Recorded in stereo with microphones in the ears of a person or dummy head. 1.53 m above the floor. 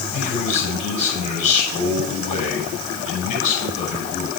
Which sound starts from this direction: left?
A man speaking, at 0.1 s.